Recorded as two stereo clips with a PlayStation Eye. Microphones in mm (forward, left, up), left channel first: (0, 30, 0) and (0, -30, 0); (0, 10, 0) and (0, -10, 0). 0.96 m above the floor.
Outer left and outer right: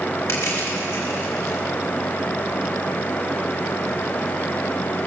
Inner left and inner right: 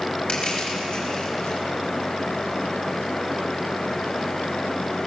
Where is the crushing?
50° left (ahead or behind), 5 m.